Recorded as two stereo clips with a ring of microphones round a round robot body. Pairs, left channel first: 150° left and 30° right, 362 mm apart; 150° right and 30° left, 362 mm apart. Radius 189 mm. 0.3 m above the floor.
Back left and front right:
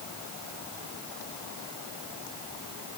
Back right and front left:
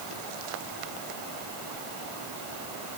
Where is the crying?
No crying in this recording.